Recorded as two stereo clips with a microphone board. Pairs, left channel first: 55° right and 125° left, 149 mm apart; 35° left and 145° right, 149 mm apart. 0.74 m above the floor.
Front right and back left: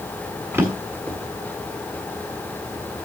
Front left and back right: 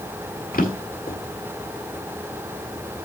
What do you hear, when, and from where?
0.5 s a drawer: 50° left, 1.8 m